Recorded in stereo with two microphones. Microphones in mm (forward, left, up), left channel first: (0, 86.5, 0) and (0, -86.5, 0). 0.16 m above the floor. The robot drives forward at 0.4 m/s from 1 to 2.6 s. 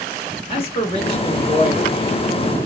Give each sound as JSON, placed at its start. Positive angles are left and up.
{"t": 0.5, "sound": "a man speaking", "side_deg": 30, "distance_m": 1.4}